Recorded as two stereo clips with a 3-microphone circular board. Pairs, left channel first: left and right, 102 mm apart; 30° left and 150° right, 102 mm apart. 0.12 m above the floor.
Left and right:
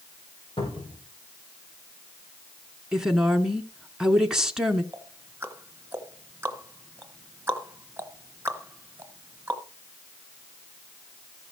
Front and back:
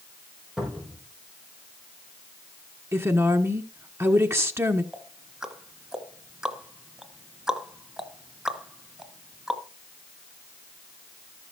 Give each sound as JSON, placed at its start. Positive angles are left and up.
{"t": 0.6, "sound": "a cupboard door", "azimuth_deg": 125, "distance_m": 5.5}
{"t": 2.9, "sound": "a woman speaking", "azimuth_deg": -170, "distance_m": 1.3}
{"t": 4.9, "sound": "ticking", "azimuth_deg": -80, "distance_m": 1.2}